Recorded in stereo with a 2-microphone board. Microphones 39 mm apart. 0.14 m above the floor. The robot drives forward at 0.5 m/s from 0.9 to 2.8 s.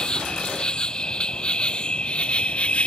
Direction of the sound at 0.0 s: 20° left (ahead or behind).